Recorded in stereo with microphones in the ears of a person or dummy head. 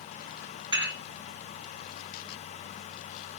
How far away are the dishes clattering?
About 1.4 m.